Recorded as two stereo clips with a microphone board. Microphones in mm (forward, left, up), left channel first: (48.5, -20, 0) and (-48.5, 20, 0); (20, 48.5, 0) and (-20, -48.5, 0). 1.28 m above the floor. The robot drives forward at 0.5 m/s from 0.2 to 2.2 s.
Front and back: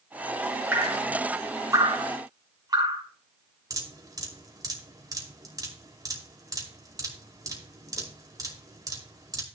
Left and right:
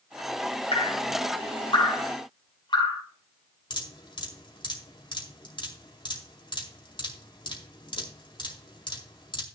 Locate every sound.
0.7 s dripping: 90° left, 2 m; by 3.0 s 105° left, 2.5 m
3.7 s dripping: 105° left, 2.5 m